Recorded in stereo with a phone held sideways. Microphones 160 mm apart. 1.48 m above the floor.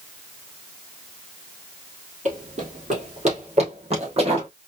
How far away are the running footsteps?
About 2.5 m.